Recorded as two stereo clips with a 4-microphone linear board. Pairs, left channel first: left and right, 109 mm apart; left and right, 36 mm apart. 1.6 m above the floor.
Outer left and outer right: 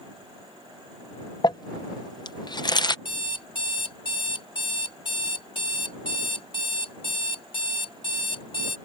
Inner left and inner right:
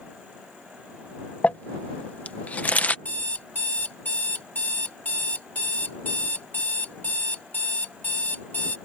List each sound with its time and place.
1.4 s crumpling: 40° left (ahead or behind)
3.0 s an alarm clock: 50° left (ahead or behind)